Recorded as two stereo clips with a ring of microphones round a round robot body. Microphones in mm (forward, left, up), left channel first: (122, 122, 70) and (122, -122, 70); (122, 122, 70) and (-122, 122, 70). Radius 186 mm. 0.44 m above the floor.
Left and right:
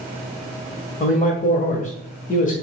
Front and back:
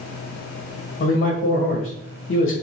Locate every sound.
1.0 s a man speaking: 35° left, 2 m